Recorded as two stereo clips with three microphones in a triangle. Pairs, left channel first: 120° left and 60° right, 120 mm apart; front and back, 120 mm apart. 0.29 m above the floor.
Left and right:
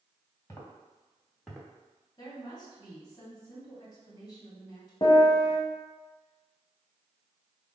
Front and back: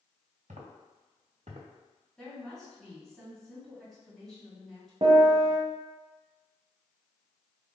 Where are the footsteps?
175° right, 2.0 m; by 1.7 s 145° right, 1.5 m.